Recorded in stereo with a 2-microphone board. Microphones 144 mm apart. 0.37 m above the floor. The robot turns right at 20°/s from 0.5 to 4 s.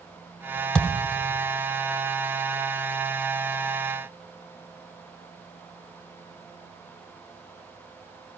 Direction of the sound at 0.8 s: 5° left (ahead or behind).